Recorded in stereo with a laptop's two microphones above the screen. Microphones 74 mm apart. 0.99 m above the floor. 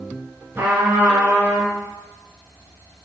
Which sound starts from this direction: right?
A trumpet, at 0.6 s.